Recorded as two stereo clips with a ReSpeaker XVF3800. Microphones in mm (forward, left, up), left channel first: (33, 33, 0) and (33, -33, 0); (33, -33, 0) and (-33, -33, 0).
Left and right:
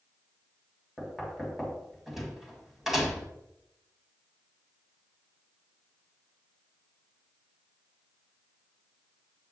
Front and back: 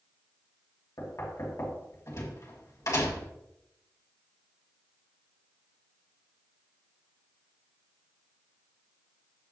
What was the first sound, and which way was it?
Knocking, 5° right.